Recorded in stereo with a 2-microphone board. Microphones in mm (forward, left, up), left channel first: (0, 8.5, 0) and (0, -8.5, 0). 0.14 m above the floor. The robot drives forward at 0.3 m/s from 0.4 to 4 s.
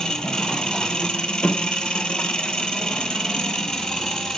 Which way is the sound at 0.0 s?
60° left (ahead or behind).